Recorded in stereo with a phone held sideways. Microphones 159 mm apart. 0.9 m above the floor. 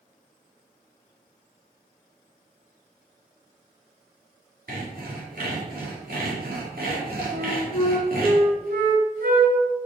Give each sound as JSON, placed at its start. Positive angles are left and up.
{"t": 4.7, "sound": "sawing", "side_deg": -70, "distance_m": 2.5}
{"t": 7.3, "sound": "a flute", "side_deg": -70, "distance_m": 1.6}